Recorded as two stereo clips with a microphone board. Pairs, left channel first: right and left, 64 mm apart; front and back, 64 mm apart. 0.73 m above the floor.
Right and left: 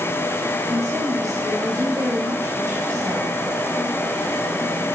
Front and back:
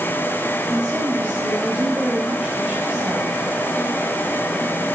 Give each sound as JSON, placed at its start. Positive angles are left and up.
{"t": 0.7, "sound": "a woman speaking", "azimuth_deg": 105, "distance_m": 4.5}